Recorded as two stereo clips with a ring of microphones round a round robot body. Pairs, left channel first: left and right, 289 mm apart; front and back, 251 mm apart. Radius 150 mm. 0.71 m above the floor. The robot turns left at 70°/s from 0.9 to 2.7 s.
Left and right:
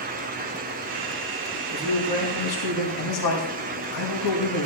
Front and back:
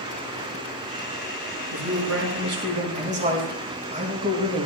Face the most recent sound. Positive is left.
turn(degrees=115)